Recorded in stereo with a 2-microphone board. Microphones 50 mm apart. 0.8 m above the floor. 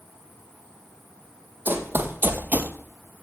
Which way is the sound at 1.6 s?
40° right (ahead or behind).